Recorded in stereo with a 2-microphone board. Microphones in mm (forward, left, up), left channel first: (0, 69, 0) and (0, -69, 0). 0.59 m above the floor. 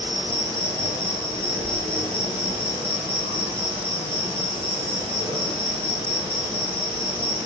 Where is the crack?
No crack in this recording.